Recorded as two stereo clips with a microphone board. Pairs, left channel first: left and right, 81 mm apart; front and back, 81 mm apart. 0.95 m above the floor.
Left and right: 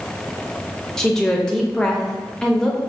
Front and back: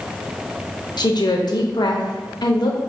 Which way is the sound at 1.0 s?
10° left.